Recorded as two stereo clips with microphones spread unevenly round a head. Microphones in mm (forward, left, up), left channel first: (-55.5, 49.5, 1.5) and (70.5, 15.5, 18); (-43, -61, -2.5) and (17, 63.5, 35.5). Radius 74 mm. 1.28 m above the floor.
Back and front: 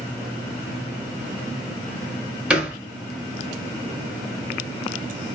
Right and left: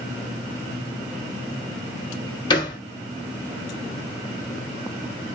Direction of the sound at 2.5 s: 60° right.